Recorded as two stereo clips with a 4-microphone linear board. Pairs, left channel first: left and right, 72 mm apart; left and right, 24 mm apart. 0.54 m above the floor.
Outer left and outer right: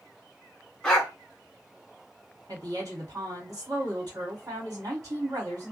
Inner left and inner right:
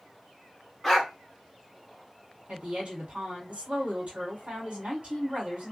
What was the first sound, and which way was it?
A dog barking, 10° left (ahead or behind).